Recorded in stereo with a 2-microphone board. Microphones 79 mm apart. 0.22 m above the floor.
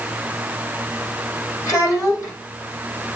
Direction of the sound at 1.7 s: 40° left (ahead or behind).